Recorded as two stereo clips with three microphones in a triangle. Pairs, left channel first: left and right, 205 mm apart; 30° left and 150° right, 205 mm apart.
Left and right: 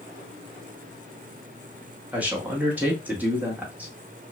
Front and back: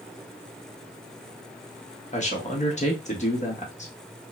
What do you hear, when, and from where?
2.1 s a man speaking: 10° right, 1.1 m